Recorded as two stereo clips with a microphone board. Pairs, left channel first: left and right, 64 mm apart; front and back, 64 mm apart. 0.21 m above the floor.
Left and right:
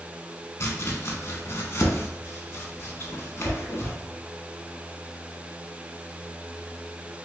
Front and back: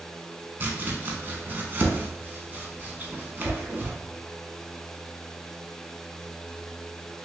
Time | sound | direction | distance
0.6 | chopping | 130° left | 0.7 m